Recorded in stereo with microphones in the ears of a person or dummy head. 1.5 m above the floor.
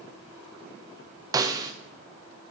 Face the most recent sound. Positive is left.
turn(degrees=-20)  # may be behind; listen again after turning